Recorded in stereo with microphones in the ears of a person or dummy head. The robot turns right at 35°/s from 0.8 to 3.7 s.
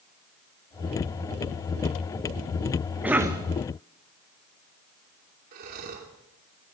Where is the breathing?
50° right (ahead or behind), 2.5 m.